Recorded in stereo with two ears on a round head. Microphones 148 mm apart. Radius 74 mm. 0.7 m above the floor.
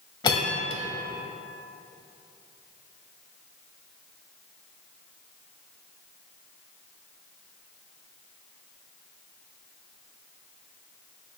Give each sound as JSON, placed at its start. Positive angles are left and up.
{"t": 0.2, "sound": "a bell", "side_deg": 30, "distance_m": 0.8}